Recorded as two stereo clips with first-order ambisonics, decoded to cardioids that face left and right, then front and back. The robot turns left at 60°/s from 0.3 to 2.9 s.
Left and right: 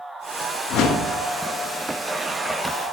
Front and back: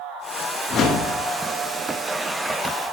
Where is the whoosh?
55° left, 1.1 m; by 1.1 s 30° left, 1.1 m.